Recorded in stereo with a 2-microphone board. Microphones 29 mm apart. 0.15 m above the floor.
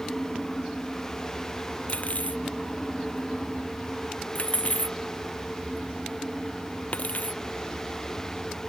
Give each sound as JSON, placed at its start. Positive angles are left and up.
{"t": 1.9, "sound": "cutlery clinking", "side_deg": 55}